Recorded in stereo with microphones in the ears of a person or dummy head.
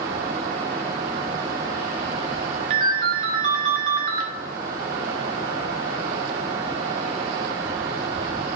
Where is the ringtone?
30° right (ahead or behind), 0.7 m.